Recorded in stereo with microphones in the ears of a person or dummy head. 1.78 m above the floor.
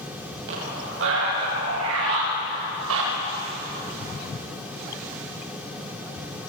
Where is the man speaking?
65° right (ahead or behind), 9 m; by 3.1 s 75° right (ahead or behind), 6.5 m.